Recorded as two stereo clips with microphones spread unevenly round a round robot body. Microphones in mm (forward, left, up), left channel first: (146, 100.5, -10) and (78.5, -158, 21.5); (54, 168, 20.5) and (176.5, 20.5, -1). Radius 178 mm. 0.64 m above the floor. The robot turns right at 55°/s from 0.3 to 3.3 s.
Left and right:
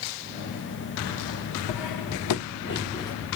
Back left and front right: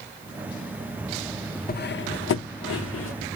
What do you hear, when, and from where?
1.7 s cutlery clinking: 80° left, 0.6 m; by 3.2 s 160° left, 0.6 m